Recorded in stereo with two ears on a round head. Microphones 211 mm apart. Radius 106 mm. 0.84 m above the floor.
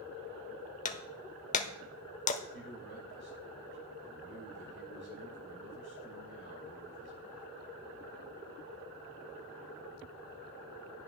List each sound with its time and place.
0.8 s breaking glass: 30° left (ahead or behind), 0.9 m
2.5 s a man speaking: 50° right (ahead or behind), 5 m